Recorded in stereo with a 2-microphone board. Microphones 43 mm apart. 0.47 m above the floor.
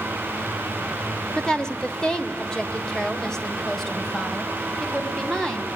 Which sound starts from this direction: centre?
A woman speaking, at 1.4 s.